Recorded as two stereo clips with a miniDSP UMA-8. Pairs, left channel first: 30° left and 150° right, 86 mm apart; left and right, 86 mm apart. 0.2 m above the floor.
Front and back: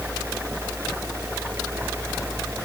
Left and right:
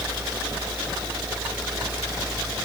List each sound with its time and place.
Only background noise.